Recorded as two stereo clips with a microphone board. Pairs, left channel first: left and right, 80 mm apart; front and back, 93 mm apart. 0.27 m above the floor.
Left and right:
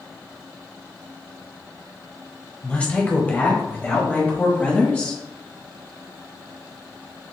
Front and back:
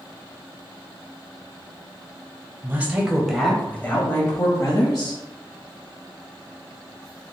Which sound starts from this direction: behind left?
A woman speaking, at 2.6 s.